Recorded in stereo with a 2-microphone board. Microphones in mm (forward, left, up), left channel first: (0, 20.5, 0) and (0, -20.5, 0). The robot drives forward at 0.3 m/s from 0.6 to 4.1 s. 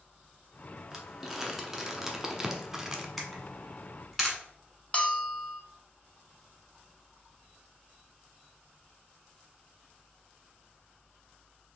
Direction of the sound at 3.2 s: Centre (ahead or behind).